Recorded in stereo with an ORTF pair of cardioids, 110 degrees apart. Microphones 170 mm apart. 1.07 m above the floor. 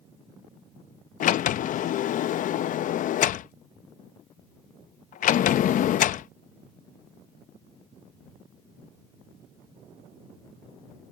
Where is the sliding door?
50° left.